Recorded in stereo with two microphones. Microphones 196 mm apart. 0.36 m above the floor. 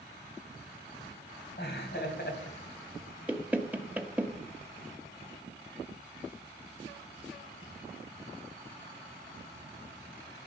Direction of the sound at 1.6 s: 60° left (ahead or behind).